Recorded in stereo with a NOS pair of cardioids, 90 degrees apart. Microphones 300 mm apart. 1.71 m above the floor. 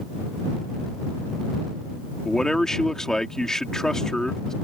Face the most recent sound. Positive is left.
turn(degrees=0)